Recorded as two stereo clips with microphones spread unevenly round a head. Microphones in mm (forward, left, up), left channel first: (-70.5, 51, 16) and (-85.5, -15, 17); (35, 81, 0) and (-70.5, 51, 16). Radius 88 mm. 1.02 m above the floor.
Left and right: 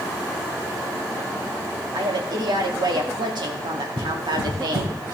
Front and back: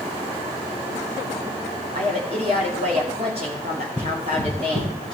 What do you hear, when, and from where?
1.9 s a woman speaking: 105° right, 2 m
4.0 s running footsteps: 85° right, 4.5 m; by 5.2 s 105° right, 3.5 m